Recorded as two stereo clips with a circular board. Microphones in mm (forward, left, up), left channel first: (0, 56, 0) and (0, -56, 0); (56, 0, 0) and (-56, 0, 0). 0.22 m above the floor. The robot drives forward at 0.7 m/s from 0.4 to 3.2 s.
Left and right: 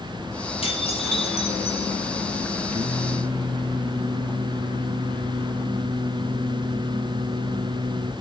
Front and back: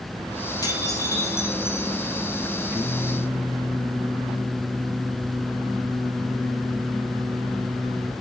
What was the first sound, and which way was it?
Dishes clattering, 60° left.